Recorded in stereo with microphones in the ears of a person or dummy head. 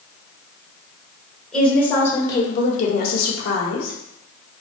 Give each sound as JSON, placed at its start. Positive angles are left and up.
{"t": 1.5, "sound": "a woman speaking", "side_deg": 0, "distance_m": 1.2}